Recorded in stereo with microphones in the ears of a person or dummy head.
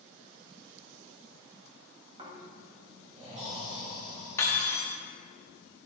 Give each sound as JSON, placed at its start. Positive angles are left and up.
{"t": 2.2, "sound": "snoring", "side_deg": -25, "distance_m": 2.0}
{"t": 4.4, "sound": "cutlery clinking", "side_deg": 20, "distance_m": 1.3}